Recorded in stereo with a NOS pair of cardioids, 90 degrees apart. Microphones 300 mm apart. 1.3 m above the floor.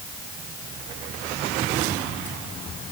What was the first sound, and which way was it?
Only background noise.